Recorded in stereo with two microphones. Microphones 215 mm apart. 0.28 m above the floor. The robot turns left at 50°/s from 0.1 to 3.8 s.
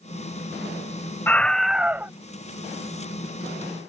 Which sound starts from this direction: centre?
A scream, at 1.3 s.